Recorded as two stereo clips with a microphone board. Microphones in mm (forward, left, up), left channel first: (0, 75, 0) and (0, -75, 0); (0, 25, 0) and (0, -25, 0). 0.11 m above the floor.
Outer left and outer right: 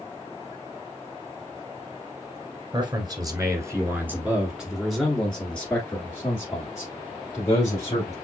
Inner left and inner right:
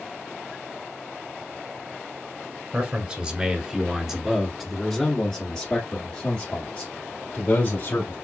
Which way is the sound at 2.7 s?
30° right (ahead or behind).